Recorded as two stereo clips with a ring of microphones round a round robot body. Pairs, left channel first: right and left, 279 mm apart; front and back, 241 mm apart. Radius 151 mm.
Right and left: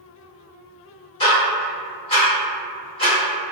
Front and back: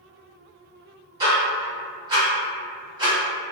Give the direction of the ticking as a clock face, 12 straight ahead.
4 o'clock.